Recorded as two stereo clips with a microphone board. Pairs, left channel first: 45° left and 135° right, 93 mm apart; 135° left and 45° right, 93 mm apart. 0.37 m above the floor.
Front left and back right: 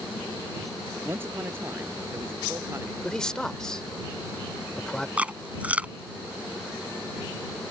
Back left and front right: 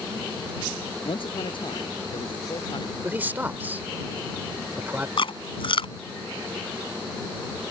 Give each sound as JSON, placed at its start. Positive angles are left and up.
{"t": 1.0, "sound": "a man speaking", "azimuth_deg": 160}
{"t": 3.0, "sound": "a man speaking", "azimuth_deg": -25}
{"t": 5.2, "sound": "chewing", "azimuth_deg": 150}